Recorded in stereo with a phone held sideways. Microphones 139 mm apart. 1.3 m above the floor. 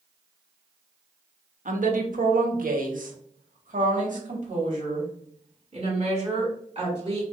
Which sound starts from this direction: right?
A woman speaking, at 1.6 s.